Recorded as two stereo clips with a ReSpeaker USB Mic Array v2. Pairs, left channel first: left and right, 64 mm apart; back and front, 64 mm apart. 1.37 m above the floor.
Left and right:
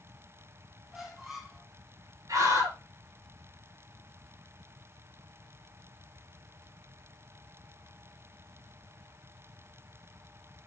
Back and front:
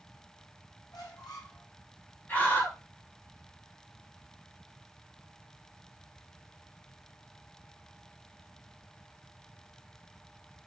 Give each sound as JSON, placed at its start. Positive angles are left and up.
{"t": 0.9, "sound": "a squeak", "azimuth_deg": -175, "distance_m": 3.0}
{"t": 2.3, "sound": "a scream", "azimuth_deg": -115, "distance_m": 4.5}